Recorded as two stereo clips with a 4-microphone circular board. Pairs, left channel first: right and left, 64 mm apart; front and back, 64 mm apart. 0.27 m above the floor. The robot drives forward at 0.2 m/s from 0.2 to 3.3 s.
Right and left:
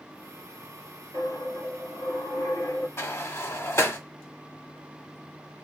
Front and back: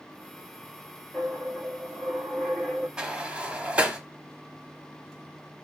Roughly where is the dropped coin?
Right.